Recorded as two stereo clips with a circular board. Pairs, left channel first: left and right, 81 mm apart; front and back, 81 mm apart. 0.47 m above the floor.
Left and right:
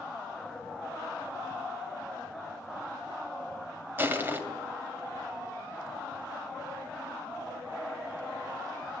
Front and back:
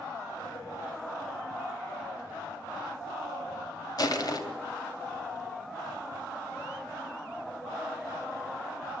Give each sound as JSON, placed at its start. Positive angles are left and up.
{"t": 4.0, "sound": "crushing", "azimuth_deg": -30, "distance_m": 2.5}